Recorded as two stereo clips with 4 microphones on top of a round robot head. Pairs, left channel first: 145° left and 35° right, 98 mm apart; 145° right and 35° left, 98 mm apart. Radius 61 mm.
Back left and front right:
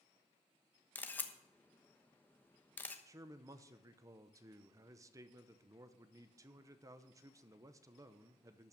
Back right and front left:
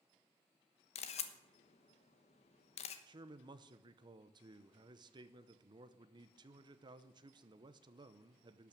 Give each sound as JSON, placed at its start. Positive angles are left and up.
{"t": 0.9, "sound": "a camera shutter", "azimuth_deg": -140, "distance_m": 1.2}
{"t": 3.1, "sound": "a man speaking", "azimuth_deg": 10, "distance_m": 0.8}